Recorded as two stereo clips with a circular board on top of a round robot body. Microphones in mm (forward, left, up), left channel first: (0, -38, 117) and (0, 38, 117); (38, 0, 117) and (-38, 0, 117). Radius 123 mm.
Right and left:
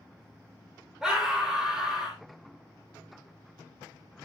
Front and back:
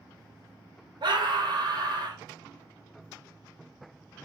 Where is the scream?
175° left, 2.5 m.